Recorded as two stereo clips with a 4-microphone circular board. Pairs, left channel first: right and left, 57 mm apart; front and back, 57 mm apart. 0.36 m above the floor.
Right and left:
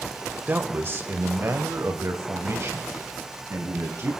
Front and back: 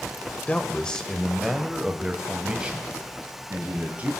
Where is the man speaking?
55° left, 1.0 m; by 4.1 s 120° left, 2.5 m.